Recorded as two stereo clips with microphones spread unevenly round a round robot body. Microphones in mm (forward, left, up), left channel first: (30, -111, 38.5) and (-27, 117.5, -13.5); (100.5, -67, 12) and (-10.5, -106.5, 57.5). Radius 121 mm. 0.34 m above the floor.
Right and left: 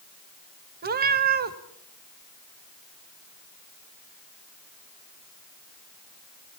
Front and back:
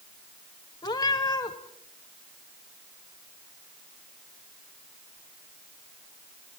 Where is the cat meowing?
65° left, 1.1 m.